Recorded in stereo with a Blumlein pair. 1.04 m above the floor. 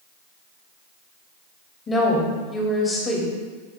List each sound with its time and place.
1.9 s a woman speaking: 20° left, 2.5 m